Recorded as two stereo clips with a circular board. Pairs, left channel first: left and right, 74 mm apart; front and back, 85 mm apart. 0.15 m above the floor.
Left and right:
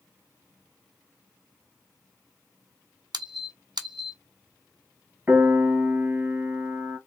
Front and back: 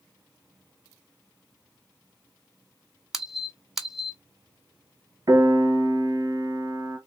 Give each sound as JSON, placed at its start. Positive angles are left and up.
{"t": 3.1, "sound": "a squeak", "azimuth_deg": -95, "distance_m": 0.6}
{"t": 5.3, "sound": "a piano", "azimuth_deg": -155, "distance_m": 1.1}